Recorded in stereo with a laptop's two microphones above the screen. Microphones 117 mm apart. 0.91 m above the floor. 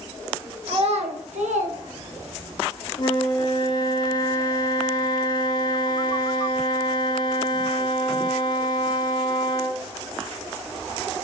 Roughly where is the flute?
Left.